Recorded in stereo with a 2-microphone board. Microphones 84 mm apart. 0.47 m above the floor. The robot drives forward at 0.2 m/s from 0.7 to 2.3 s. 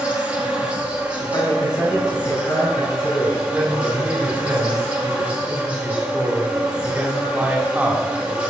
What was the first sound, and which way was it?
An insect, 15° right (ahead or behind).